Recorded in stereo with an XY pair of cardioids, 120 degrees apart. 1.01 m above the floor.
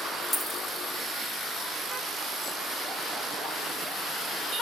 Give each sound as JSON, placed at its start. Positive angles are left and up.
{"t": 0.3, "sound": "a dropped coin", "azimuth_deg": 5, "distance_m": 0.8}